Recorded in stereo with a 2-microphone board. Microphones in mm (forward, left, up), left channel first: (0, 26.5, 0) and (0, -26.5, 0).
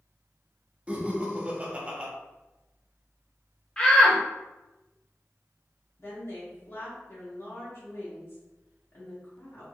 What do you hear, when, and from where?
0.9 s laughter: 20° right (ahead or behind), 0.6 m
3.8 s a shout: 20° left (ahead or behind), 0.7 m
6.0 s a woman speaking: 50° left (ahead or behind), 1.0 m